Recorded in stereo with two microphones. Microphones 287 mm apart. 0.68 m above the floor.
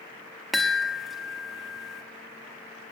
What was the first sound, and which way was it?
A chime, centre (ahead or behind).